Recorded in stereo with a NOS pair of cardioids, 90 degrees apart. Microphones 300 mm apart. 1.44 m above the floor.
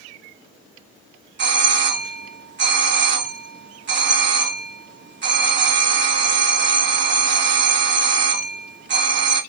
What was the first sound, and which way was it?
A doorbell, 40° right.